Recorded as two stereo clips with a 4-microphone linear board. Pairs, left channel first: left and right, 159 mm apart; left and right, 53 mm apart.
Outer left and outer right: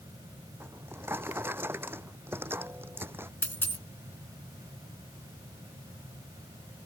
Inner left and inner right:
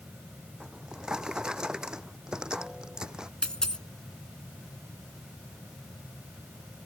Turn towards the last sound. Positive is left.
turn(degrees=15)  # may be behind; listen again after turning